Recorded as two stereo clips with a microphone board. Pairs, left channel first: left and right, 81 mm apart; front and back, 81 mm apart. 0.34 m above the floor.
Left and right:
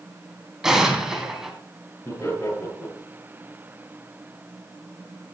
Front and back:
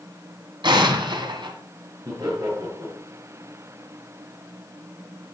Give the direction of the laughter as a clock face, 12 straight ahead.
7 o'clock.